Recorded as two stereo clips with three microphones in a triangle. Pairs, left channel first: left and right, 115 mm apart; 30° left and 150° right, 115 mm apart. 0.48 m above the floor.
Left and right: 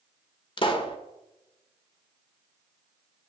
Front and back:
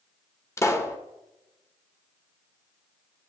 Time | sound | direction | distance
0.6 | a pop | 85° left | 1.4 m